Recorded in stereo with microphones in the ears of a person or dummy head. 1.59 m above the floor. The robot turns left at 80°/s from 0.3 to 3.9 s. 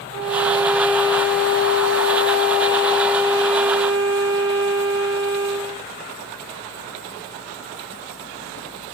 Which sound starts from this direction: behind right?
A violin, at 0.1 s.